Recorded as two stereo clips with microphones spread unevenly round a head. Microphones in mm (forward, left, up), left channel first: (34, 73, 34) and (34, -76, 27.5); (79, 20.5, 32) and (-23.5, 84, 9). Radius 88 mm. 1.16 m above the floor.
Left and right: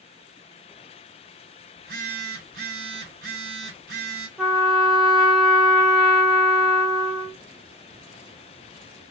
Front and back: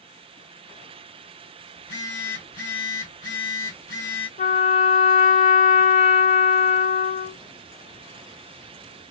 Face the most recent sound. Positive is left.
turn(degrees=-5)